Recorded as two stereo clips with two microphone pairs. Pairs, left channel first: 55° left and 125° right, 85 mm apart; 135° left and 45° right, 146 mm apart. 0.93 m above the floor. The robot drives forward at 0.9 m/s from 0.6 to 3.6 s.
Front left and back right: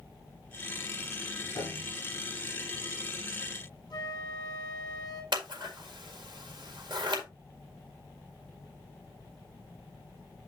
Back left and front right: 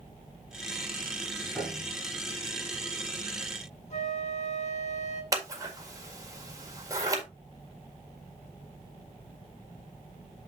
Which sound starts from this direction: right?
Scissors, at 5.3 s.